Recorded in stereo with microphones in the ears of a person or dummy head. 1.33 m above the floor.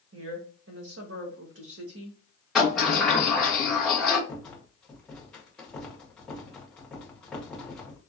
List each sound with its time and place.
0.1 s a woman speaking: 80° right, 1.3 m
2.5 s a sliding door: 5° left (ahead or behind), 1.1 m
4.3 s a rattle: 5° left (ahead or behind), 0.8 m